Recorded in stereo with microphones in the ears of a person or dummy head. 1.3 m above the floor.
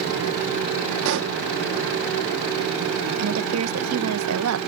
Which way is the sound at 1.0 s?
65° right (ahead or behind).